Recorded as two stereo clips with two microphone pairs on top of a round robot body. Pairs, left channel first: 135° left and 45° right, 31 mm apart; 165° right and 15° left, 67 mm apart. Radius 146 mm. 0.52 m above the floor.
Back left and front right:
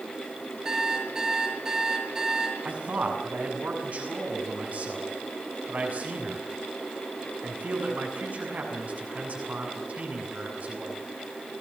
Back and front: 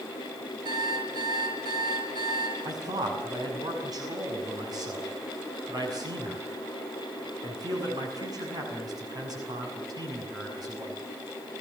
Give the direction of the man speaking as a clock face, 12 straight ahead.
12 o'clock.